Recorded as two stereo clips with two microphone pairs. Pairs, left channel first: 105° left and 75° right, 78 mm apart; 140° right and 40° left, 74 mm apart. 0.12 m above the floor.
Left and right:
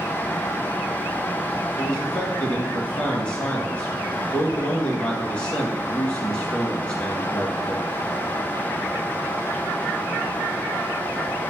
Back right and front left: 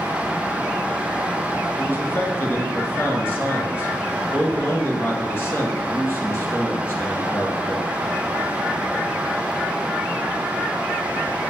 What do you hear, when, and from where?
1.8 s a man speaking: 175° left, 1.9 m